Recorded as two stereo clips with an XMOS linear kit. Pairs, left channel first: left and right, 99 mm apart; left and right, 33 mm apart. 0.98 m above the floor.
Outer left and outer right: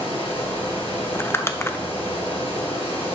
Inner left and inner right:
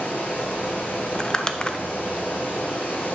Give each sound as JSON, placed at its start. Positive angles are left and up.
{"t": 0.0, "sound": "running water", "side_deg": 65, "distance_m": 5.0}
{"t": 1.1, "sound": "crumpling", "side_deg": 25, "distance_m": 0.6}